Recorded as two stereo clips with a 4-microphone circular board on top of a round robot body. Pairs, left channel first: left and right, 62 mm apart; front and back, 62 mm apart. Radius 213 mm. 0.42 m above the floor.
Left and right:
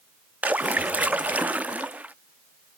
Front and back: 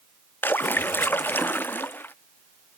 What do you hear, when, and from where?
0.4 s a splash: 35° right